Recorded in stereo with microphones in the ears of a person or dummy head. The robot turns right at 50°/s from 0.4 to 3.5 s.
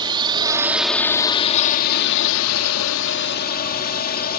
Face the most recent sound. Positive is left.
turn(degrees=130)